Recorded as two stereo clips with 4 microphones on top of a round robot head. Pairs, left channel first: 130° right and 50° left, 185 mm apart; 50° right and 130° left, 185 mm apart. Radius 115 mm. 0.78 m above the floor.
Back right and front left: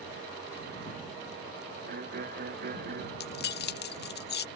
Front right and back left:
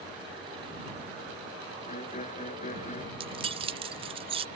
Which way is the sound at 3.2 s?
165° right.